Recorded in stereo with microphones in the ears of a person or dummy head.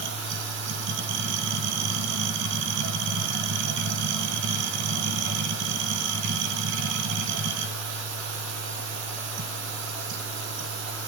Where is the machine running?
65° right (ahead or behind), 0.8 m.